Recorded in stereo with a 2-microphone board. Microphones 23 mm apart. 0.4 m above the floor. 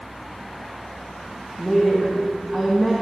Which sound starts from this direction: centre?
A woman speaking, at 1.6 s.